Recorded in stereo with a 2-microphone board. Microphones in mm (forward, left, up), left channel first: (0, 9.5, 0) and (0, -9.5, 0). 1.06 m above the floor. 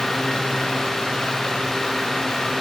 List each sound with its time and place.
Only background noise.